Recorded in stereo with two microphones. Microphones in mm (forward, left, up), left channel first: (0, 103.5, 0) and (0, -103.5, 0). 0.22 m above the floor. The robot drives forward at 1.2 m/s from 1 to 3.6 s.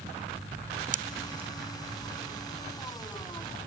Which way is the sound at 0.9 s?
40° right (ahead or behind).